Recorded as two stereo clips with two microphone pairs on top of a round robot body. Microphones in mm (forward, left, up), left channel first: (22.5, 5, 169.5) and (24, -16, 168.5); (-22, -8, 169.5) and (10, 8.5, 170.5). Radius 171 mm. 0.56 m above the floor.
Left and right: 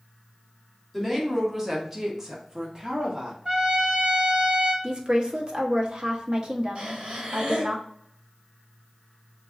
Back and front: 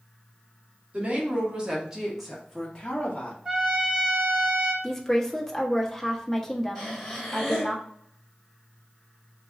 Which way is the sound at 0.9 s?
5° right.